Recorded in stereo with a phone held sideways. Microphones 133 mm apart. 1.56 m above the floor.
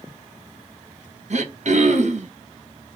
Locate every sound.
1.3 s throat clearing: 60° right (ahead or behind), 0.6 m